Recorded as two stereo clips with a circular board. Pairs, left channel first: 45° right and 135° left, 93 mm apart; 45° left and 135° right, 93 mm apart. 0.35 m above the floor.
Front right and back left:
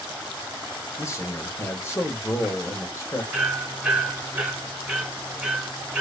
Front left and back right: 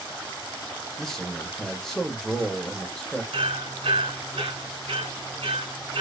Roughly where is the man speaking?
Ahead right.